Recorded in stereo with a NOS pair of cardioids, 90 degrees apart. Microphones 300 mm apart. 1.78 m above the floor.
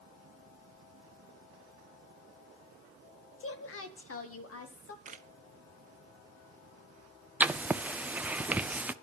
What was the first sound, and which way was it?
A woman speaking, 45° left.